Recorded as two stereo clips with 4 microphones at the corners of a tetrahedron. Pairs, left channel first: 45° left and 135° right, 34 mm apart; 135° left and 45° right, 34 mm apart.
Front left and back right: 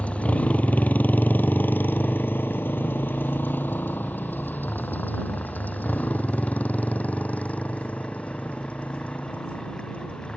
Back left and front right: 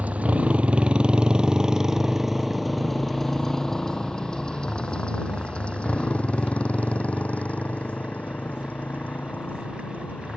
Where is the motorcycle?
5° right; by 10.4 s 100° left.